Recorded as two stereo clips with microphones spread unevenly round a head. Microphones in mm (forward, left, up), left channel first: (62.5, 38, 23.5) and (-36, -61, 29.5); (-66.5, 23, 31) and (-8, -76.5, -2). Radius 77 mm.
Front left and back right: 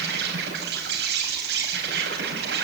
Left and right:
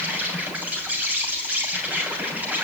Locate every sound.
0.0 s an insect: 135° right, 6 m